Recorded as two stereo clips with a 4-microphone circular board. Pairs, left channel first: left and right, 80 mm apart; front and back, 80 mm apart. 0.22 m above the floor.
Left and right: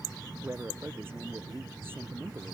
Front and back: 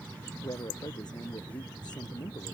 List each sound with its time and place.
0.4 s a man speaking: 30° right